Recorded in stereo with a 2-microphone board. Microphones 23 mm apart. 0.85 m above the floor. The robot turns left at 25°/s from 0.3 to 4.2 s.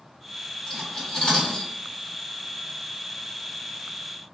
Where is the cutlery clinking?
20° left (ahead or behind), 1.2 m; by 1.7 s 45° left (ahead or behind), 1.2 m.